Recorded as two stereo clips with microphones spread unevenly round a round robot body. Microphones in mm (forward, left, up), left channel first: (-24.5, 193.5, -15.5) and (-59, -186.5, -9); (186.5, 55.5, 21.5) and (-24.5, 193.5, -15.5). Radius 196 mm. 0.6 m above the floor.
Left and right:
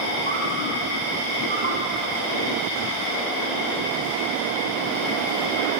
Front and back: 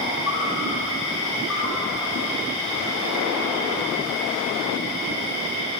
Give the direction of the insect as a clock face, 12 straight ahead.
3 o'clock.